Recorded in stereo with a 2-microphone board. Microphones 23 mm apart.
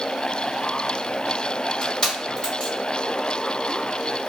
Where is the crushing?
30° left (ahead or behind), 1.6 m.